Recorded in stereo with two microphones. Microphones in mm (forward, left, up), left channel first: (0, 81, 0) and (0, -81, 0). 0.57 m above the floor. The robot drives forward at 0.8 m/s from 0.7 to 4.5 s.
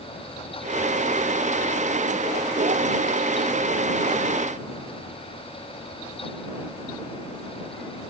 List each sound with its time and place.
Only background noise.